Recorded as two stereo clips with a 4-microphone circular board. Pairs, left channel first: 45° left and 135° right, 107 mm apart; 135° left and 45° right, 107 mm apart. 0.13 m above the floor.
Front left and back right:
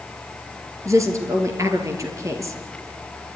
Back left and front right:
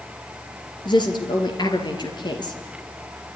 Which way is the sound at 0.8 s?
170° left.